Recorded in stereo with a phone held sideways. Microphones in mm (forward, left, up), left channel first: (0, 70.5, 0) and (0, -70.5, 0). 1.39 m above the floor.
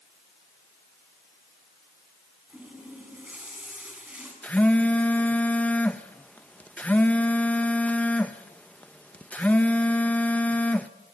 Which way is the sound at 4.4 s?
10° left (ahead or behind).